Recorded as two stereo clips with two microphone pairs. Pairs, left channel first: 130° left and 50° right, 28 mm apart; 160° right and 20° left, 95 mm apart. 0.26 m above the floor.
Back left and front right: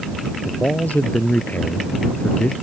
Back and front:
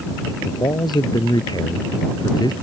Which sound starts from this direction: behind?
A man speaking, at 0.5 s.